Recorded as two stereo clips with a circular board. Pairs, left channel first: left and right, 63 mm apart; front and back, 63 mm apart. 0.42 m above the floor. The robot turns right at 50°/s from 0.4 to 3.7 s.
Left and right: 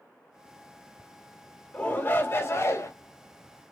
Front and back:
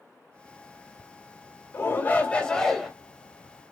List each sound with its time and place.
1.7 s a shout: 30° left, 1.8 m; by 2.9 s 90° left, 1.8 m